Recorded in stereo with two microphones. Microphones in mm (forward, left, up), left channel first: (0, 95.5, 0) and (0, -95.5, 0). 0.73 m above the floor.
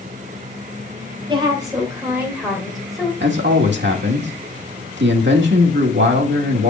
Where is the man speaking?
70° right (ahead or behind), 1.6 m.